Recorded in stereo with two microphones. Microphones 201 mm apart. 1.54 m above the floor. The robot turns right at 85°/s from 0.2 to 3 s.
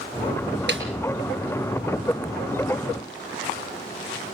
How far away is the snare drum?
About 4 m.